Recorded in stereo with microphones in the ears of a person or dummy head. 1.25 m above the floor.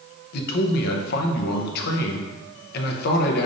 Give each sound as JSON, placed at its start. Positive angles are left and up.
{"t": 0.3, "sound": "a man speaking", "side_deg": 60, "distance_m": 0.7}